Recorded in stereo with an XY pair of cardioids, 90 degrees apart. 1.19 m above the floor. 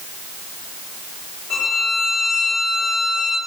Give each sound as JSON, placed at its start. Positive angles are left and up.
{"t": 1.5, "sound": "a violin", "azimuth_deg": 65, "distance_m": 3.0}